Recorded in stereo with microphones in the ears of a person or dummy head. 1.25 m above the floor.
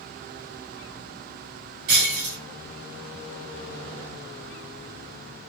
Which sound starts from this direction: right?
Breaking glass, at 1.9 s.